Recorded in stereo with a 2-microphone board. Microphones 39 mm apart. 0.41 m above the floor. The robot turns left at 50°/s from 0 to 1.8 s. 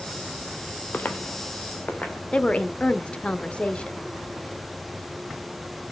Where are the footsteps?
50° left (ahead or behind), 0.8 m; by 2.2 s 40° left (ahead or behind), 1.9 m.